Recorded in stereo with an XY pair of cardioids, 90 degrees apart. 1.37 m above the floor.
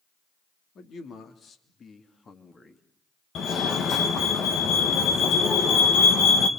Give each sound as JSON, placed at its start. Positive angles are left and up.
{"t": 0.8, "sound": "a man speaking", "azimuth_deg": 65, "distance_m": 3.5}
{"t": 3.4, "sound": "a fire alarm", "azimuth_deg": 70, "distance_m": 2.5}